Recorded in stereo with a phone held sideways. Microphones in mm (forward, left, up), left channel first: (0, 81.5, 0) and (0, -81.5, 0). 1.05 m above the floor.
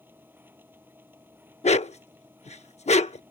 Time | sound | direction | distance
0.0 | a machine running | 10° right (ahead or behind) | ?
1.6 | a dog barking | 45° left (ahead or behind) | ?